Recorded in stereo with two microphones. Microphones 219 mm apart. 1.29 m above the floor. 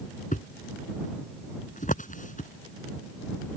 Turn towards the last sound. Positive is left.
turn(degrees=35)  # may be behind; listen again after turning